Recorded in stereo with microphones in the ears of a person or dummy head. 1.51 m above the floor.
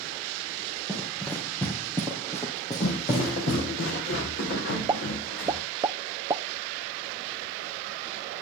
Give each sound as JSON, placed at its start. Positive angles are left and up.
{"t": 0.9, "sound": "running footsteps", "side_deg": 5, "distance_m": 3.0}
{"t": 2.8, "sound": "footsteps", "side_deg": 55, "distance_m": 3.0}
{"t": 4.9, "sound": "a pop", "side_deg": -15, "distance_m": 0.8}